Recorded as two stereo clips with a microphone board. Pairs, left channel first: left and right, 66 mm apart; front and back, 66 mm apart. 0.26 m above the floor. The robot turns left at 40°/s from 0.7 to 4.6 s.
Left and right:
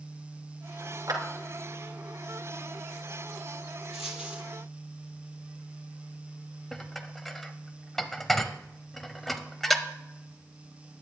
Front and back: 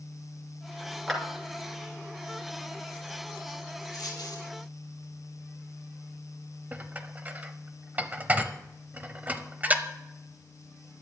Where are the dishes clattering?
175° left, 0.8 m.